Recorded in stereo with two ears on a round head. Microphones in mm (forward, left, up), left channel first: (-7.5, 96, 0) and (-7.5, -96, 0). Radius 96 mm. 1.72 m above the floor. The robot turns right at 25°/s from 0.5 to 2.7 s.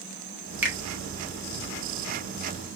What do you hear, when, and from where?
0.6 s a finger snap: 10° right (ahead or behind), 1.6 m